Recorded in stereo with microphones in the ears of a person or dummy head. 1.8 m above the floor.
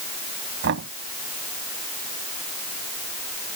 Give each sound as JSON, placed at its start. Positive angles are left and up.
{"t": 0.6, "sound": "knocking", "side_deg": -65}